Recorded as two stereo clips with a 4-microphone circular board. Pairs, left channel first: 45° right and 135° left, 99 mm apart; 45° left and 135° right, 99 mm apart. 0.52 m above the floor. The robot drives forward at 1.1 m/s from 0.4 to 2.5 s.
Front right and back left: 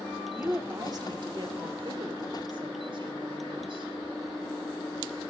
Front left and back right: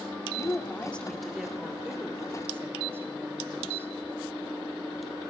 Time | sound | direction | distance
0.3 | a woman speaking | 75° left | 1.2 m